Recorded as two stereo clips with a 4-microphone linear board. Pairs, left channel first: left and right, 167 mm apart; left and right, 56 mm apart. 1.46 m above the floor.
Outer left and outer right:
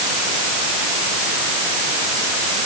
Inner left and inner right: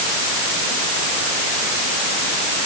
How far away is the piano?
No piano in this recording.